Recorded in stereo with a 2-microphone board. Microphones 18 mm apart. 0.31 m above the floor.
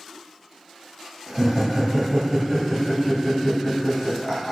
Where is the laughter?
35° right (ahead or behind), 1.6 m; by 4.5 s 30° left (ahead or behind), 2 m.